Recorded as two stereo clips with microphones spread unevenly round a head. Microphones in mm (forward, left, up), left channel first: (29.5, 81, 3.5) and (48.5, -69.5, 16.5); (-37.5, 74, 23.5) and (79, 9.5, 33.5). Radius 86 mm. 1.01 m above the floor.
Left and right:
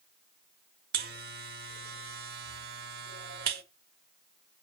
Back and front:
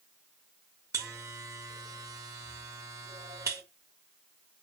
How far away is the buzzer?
About 1.2 m.